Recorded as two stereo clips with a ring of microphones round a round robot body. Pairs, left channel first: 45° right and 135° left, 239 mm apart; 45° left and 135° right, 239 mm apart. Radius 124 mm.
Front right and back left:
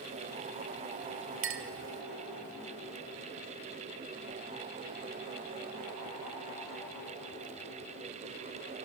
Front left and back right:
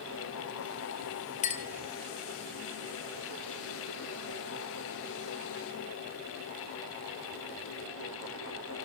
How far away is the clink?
About 1.5 m.